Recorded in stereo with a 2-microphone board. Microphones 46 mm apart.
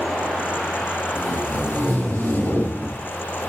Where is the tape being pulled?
50° left (ahead or behind), 3.5 m.